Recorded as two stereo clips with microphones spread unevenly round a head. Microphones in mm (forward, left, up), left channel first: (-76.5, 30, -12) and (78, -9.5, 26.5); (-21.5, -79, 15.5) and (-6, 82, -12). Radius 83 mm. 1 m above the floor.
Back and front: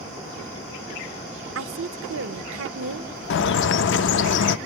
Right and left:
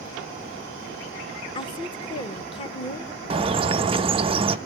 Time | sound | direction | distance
1.6 | a woman speaking | 30° right | 0.8 m
3.3 | a bird | 145° left | 0.5 m